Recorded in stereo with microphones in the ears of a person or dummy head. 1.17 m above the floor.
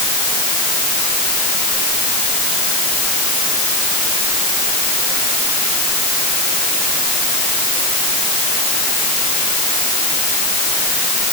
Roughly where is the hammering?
No hammering in this recording.